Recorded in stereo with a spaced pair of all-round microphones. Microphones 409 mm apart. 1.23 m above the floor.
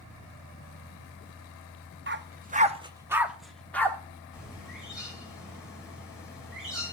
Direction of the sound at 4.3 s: Centre (ahead or behind).